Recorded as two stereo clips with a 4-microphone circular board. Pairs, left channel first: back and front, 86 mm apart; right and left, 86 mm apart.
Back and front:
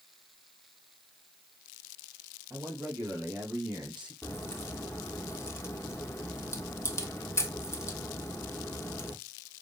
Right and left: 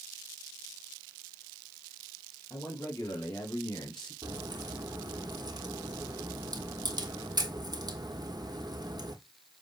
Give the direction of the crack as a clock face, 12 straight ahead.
8 o'clock.